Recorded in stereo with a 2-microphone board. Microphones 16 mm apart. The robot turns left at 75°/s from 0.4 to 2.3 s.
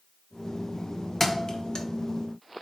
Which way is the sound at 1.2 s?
20° left (ahead or behind).